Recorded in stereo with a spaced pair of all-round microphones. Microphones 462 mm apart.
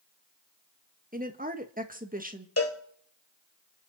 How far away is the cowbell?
About 1.7 m.